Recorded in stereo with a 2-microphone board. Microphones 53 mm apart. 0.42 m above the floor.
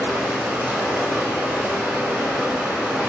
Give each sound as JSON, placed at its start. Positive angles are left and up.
{"t": 0.0, "sound": "running water", "side_deg": -20, "distance_m": 0.9}